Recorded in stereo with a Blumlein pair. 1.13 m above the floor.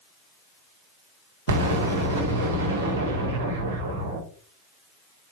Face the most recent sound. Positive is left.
turn(degrees=-65)